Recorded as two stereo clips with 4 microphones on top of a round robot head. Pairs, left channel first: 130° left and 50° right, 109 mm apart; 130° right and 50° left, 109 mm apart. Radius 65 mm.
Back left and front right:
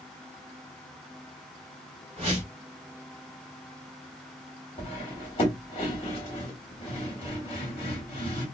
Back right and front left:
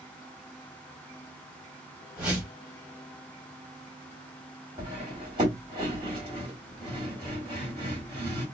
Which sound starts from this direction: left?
Cutlery clinking, at 4.8 s.